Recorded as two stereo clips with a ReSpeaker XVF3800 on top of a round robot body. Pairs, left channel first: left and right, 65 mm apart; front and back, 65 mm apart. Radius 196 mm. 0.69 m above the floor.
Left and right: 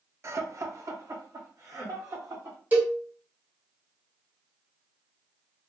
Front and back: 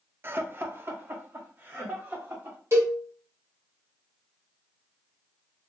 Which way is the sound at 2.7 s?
150° right.